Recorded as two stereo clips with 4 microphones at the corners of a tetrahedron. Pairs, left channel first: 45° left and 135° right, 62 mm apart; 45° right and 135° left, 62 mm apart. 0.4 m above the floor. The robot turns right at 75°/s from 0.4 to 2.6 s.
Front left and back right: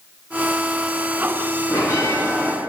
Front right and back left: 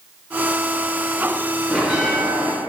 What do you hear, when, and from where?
1.7 s a bell: 40° left, 2.5 m; by 2.5 s 105° left, 2.5 m